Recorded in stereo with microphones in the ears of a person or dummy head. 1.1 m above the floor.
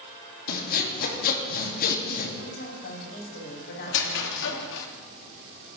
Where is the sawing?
55° left (ahead or behind), 2 m.